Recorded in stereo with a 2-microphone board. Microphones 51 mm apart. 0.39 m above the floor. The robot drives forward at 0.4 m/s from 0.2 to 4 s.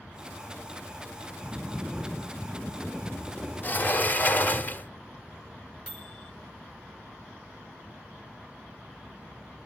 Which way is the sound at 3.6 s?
35° left (ahead or behind).